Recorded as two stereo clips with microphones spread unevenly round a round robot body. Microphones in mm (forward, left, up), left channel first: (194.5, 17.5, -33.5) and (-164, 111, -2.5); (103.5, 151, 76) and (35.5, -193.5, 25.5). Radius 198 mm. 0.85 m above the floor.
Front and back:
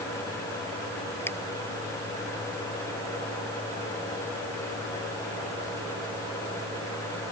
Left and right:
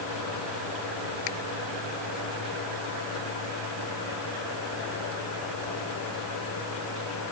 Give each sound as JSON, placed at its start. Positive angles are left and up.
{"t": 1.3, "sound": "a finger snap", "azimuth_deg": 70}